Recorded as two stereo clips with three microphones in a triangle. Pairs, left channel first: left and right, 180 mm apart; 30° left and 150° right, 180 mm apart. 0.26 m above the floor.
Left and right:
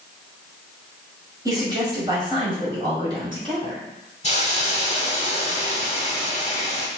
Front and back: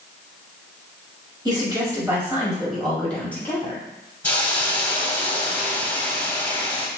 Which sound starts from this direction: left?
A hiss, at 4.2 s.